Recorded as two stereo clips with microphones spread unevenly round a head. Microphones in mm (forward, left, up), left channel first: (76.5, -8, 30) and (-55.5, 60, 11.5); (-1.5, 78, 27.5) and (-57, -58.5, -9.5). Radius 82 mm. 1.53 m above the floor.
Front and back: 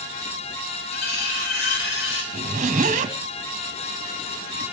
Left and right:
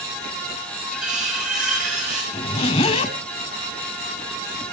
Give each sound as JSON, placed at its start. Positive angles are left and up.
{"t": 0.9, "sound": "cutlery clinking", "azimuth_deg": -25, "distance_m": 6.0}
{"t": 2.3, "sound": "a zipper", "azimuth_deg": 115, "distance_m": 3.0}